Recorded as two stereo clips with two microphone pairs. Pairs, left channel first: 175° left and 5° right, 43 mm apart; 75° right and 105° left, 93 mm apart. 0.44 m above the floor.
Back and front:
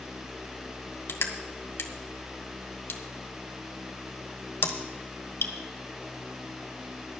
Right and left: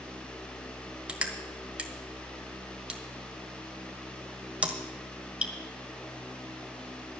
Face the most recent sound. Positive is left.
turn(degrees=-175)